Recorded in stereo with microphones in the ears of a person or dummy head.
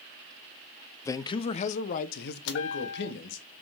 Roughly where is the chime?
Left.